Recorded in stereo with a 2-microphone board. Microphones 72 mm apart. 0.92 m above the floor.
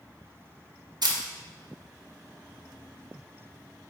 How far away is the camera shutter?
About 0.7 m.